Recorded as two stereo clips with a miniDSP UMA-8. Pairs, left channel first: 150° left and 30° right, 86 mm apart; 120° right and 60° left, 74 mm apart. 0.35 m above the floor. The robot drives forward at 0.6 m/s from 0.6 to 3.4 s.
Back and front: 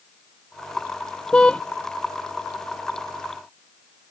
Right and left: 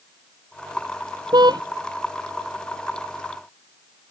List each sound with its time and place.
1.3 s a car horn: 70° left